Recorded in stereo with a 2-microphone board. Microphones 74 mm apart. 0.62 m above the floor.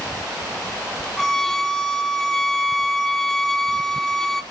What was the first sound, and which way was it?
A violin, 5° left (ahead or behind).